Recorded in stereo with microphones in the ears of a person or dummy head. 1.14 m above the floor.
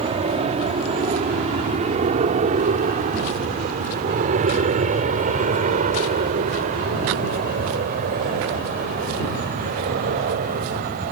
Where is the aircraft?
35° right (ahead or behind); by 11.1 s 50° right (ahead or behind).